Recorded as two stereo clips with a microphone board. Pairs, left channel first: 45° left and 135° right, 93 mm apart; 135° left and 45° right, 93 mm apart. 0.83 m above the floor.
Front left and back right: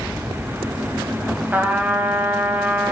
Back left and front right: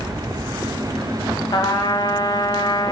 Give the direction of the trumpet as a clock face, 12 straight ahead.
7 o'clock.